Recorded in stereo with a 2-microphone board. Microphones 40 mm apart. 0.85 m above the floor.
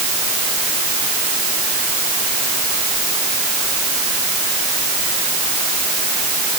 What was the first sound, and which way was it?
Only background noise.